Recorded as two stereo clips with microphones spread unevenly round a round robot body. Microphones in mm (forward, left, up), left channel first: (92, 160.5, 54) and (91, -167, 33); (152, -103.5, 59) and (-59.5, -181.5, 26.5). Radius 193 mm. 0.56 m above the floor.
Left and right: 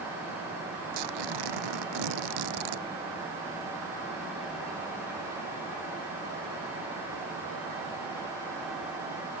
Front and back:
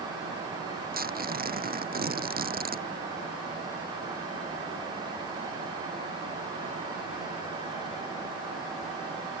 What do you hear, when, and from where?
0.9 s tearing paper: 110° right